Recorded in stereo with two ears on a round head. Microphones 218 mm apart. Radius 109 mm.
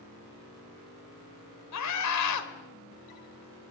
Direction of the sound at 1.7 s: 75° left (ahead or behind).